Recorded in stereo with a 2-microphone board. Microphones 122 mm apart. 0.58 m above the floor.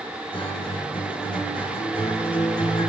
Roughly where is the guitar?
Left.